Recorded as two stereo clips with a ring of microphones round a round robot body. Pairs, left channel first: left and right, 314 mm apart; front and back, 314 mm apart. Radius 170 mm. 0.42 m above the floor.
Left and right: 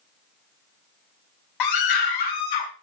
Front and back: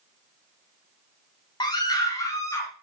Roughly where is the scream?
Left.